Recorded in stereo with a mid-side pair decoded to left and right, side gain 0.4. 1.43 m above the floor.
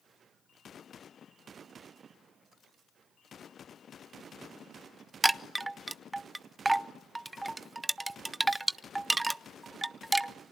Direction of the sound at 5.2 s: 20° right.